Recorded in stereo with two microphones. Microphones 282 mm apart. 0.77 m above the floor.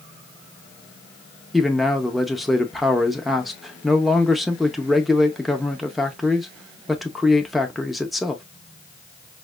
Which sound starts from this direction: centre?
A man speaking, at 1.5 s.